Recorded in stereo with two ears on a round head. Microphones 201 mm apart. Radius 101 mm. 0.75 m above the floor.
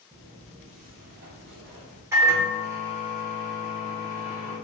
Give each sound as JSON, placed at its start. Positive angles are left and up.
{"t": 0.1, "sound": "footsteps", "side_deg": -15, "distance_m": 0.7}
{"t": 2.1, "sound": "a microwave", "side_deg": -15, "distance_m": 0.8}